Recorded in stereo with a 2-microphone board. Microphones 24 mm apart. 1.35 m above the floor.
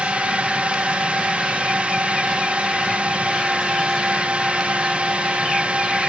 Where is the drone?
60° right (ahead or behind).